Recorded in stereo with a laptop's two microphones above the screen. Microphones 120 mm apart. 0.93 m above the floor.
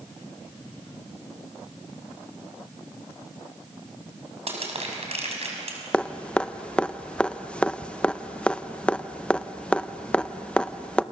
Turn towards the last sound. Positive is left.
turn(degrees=10)  # may be behind; listen again after turning